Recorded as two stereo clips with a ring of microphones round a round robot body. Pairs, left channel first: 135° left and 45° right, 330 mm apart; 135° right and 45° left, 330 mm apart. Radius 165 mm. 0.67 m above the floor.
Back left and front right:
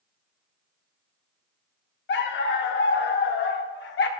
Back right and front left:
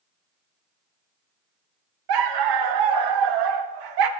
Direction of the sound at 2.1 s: 75° left.